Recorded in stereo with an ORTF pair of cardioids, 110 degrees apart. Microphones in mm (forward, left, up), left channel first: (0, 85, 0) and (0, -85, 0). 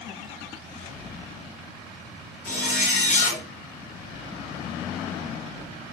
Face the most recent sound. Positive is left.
turn(degrees=65)